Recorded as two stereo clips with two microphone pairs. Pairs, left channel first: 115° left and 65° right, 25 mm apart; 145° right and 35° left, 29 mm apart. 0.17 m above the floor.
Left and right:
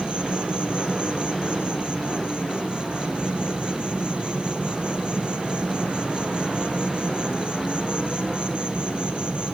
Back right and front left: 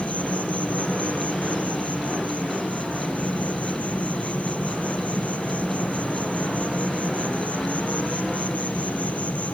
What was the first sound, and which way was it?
An insect, 110° right.